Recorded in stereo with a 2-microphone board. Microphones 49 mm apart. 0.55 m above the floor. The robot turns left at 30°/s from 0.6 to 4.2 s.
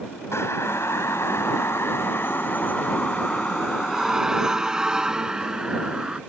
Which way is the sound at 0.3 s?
70° left (ahead or behind).